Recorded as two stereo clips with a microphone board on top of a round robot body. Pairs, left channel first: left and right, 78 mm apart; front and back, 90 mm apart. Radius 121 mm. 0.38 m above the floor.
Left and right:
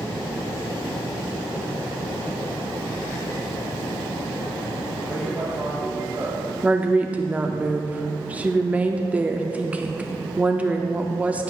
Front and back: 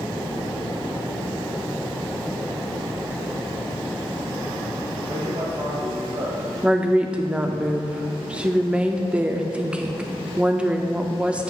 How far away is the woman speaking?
About 0.8 m.